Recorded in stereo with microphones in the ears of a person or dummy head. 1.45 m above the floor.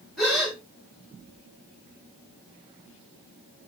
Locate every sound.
0.2 s a gasp: 5° right (ahead or behind), 1.7 m